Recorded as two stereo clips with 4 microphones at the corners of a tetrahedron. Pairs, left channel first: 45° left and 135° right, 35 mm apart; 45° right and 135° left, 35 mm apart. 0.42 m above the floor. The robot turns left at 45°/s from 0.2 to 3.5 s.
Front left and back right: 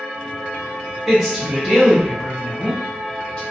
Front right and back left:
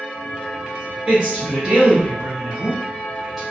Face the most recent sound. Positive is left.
turn(degrees=45)